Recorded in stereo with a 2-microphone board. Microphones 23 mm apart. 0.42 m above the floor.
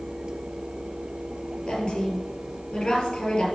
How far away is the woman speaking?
About 4.5 m.